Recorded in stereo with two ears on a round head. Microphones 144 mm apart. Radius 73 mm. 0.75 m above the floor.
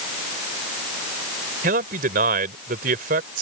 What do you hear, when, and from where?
1.6 s a man speaking: 60° right (ahead or behind)